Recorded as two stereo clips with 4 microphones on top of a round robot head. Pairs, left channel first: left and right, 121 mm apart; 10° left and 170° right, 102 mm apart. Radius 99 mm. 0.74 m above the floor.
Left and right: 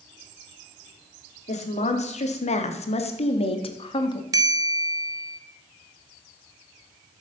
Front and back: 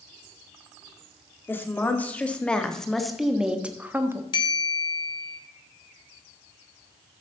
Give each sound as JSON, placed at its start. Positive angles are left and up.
{"t": 1.5, "sound": "a woman speaking", "azimuth_deg": 80, "distance_m": 2.0}
{"t": 4.3, "sound": "a bell", "azimuth_deg": -30, "distance_m": 1.1}